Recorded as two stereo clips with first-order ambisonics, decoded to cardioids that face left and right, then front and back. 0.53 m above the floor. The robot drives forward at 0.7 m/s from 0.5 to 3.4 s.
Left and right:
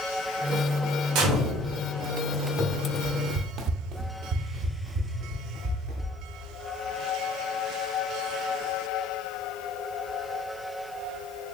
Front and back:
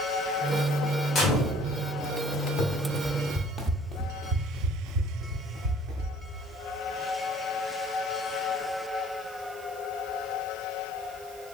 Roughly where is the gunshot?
Ahead right.